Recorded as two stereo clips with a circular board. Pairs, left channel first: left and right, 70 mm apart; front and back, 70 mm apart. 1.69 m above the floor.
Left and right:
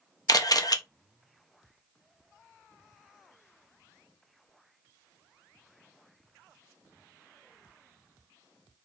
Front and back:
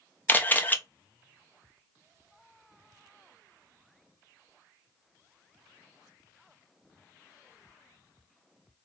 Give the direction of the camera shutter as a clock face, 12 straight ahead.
10 o'clock.